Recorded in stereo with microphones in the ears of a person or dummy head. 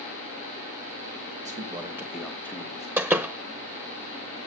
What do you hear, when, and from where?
1.4 s a man speaking: 35° right (ahead or behind), 1.4 m; by 2.9 s 20° left (ahead or behind), 2.5 m
3.0 s a door slam: 15° right (ahead or behind), 0.7 m